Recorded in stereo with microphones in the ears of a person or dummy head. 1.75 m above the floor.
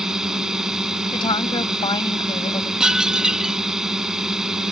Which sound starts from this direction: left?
A woman speaking, at 1.1 s.